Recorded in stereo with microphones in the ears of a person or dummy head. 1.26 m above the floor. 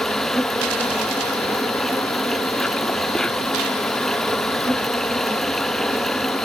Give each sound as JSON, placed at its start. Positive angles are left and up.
{"t": 0.0, "sound": "an insect", "side_deg": 5}